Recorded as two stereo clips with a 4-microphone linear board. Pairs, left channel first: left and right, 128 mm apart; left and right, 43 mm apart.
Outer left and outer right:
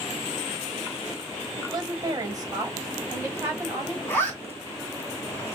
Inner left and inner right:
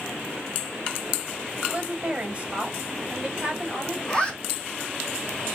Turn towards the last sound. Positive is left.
turn(degrees=15)  # may be behind; listen again after turning